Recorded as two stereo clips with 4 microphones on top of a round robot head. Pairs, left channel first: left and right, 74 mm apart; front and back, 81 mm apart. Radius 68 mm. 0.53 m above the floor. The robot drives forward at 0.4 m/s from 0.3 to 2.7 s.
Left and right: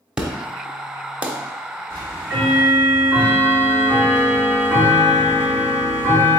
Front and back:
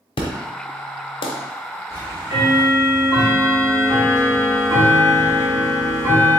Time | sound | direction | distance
0.2 | an explosion | 10° right | 1.1 m
1.9 | ticking | 130° right | 1.7 m